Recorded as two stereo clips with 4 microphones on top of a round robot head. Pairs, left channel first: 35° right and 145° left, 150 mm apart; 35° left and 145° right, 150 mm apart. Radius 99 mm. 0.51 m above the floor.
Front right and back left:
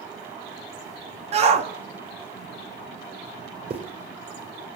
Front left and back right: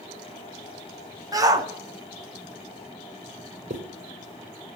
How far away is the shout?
About 1.7 m.